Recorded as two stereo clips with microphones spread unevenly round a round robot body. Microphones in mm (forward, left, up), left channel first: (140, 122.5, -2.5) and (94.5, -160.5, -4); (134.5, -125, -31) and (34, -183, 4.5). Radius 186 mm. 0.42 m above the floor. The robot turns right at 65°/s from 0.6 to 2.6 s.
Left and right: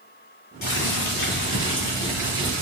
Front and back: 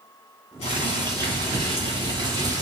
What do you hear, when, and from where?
0.6 s boiling: 70° left, 1.3 m; by 2.6 s 160° right, 1.3 m